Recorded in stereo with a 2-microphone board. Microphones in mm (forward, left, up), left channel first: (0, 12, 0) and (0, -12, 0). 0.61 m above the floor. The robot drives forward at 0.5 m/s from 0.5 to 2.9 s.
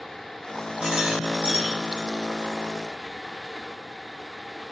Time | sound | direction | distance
0.8 | a rattle | 65° right (ahead or behind) | 3 m